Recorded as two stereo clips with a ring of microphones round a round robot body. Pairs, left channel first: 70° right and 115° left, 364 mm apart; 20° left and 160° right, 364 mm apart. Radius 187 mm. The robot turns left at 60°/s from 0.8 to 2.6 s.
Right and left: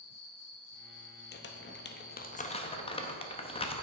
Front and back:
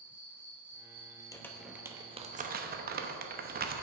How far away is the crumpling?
About 0.7 m.